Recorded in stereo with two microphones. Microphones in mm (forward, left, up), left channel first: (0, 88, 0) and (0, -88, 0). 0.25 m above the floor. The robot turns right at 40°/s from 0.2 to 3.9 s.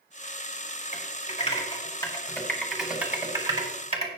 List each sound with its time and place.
0.9 s typing on a keyboard: 50° left (ahead or behind), 2 m; by 4.1 s 35° right (ahead or behind), 2 m